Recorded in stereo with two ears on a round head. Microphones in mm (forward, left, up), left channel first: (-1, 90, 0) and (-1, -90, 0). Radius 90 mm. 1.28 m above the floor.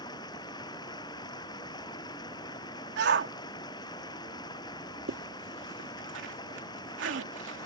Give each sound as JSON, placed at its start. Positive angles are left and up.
{"t": 0.0, "sound": "running water", "side_deg": 20}
{"t": 3.0, "sound": "a shout", "side_deg": -60}
{"t": 5.1, "sound": "a zipper", "side_deg": -70}